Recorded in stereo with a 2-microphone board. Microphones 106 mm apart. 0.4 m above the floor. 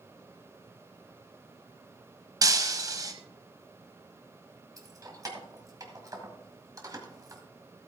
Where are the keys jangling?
35° right (ahead or behind), 1.8 m.